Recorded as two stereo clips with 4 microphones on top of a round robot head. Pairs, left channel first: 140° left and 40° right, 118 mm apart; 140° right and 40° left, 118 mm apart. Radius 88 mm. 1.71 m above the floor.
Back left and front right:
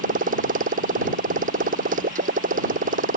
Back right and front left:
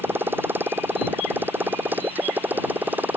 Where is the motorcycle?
35° right.